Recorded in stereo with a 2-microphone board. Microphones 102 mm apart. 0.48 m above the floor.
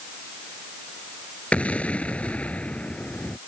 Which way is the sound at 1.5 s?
15° left (ahead or behind).